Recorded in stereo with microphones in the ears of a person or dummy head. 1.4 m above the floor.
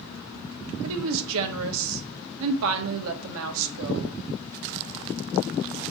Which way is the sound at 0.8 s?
70° right (ahead or behind).